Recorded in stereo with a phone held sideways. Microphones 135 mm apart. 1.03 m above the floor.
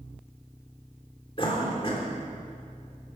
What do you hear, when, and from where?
1.4 s a cough: 40° left (ahead or behind), 3 m